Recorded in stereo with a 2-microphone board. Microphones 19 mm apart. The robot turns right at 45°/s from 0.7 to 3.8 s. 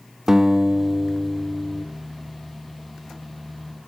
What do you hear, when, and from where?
0.3 s a guitar: 25° right, 1.1 m; by 1.9 s 30° left, 1.1 m